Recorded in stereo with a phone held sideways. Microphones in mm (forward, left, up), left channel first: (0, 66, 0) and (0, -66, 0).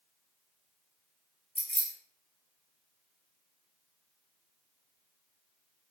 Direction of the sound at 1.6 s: 50° left (ahead or behind).